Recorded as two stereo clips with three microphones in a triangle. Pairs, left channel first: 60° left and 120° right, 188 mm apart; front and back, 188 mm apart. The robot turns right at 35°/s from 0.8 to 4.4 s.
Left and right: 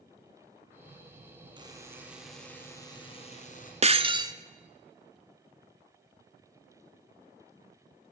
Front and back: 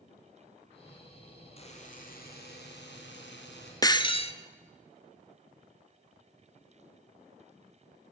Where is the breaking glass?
65° right, 0.7 m; by 4.3 s 50° right, 0.7 m.